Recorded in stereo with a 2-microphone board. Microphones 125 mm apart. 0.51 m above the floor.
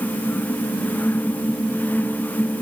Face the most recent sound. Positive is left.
No sound to turn to.